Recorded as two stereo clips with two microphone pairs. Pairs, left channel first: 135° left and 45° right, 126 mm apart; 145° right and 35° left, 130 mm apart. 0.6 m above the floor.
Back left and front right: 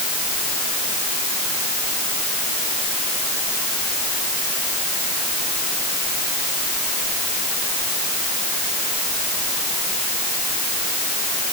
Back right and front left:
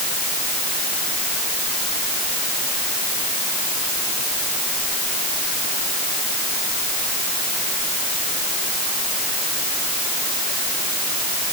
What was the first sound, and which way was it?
Only background noise.